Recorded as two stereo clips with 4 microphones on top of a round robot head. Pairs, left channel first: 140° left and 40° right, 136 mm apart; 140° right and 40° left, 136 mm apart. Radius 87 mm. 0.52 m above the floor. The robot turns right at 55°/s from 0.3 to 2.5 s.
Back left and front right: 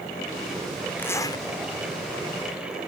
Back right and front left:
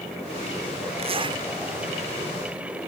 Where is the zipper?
70° left; by 1.4 s 95° left.